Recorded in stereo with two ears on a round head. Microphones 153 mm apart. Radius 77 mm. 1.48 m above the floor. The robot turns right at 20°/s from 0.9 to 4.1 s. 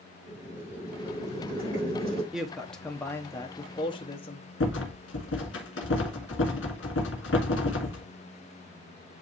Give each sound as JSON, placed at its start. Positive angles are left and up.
{"t": 0.3, "sound": "boiling", "side_deg": -15, "distance_m": 5.0}
{"t": 2.3, "sound": "a woman speaking", "azimuth_deg": -5, "distance_m": 1.1}
{"t": 4.6, "sound": "a rattle", "side_deg": 75, "distance_m": 2.0}